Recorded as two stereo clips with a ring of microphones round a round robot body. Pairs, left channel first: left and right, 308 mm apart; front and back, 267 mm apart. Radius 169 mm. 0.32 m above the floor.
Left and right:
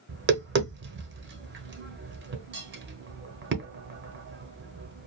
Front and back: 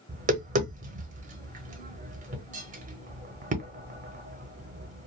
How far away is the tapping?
About 0.8 m.